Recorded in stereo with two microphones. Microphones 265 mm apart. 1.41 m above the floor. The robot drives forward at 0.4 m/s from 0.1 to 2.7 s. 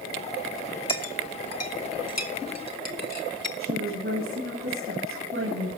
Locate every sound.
0.9 s a clink: 60° left (ahead or behind), 2 m; by 3.5 s 75° left (ahead or behind), 1.9 m
3.6 s a woman speaking: 50° right (ahead or behind), 9 m